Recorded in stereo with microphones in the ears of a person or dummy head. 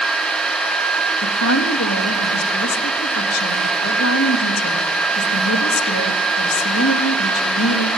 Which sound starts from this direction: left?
A woman speaking, at 1.2 s.